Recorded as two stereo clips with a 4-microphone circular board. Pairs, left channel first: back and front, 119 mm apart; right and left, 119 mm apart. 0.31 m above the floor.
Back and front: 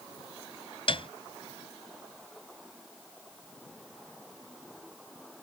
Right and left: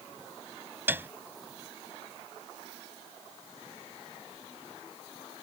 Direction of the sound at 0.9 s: 160° left.